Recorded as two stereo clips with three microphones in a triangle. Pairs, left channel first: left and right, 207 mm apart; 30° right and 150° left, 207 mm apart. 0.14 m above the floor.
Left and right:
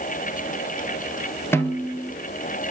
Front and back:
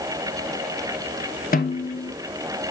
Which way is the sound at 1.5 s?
10° left.